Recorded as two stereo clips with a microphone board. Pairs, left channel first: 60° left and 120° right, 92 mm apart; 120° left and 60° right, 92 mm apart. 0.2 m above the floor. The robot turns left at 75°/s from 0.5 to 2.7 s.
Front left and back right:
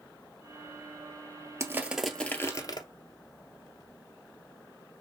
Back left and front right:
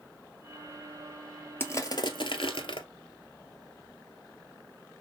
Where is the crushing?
175° right, 0.6 m; by 2.9 s 100° left, 0.6 m.